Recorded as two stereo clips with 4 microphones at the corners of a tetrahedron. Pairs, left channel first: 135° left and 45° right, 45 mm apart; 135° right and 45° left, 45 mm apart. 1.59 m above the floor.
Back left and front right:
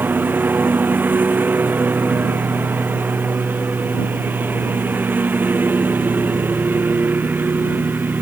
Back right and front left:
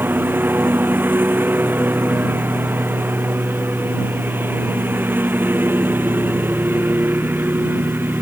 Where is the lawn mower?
Straight ahead.